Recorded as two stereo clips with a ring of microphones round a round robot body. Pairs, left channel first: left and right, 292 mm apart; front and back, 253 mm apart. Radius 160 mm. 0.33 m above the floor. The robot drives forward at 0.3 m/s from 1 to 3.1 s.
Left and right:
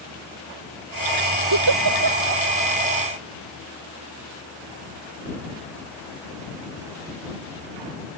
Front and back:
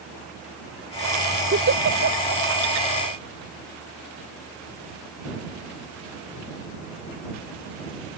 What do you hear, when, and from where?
1.5 s a giggle: 125° right